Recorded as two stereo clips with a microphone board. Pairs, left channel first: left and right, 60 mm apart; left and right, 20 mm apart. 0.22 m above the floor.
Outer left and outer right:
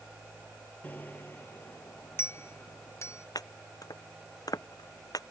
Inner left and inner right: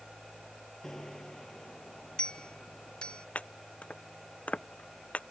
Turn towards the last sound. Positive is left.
turn(degrees=85)